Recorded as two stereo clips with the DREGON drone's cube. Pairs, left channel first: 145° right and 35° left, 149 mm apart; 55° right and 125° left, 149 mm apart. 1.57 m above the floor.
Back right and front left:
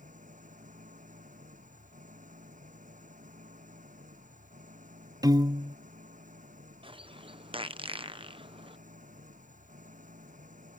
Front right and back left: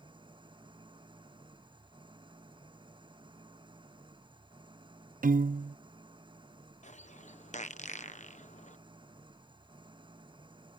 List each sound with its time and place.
0.0 s an engine running: 65° left
5.2 s a piano: 100° left
6.8 s a bird: 20° right